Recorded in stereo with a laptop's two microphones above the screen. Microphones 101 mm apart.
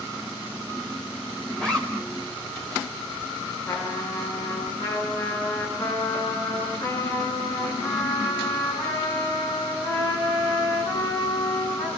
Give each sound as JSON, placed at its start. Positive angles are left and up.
{"t": 1.6, "sound": "a zipper", "side_deg": 10, "distance_m": 5.0}
{"t": 3.7, "sound": "a trumpet", "side_deg": 40, "distance_m": 9.5}